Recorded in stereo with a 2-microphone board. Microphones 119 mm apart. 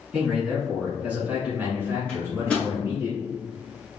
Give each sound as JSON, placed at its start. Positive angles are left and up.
{"t": 0.1, "sound": "a man speaking", "side_deg": 0, "distance_m": 1.4}
{"t": 2.1, "sound": "a microwave", "side_deg": 10, "distance_m": 1.3}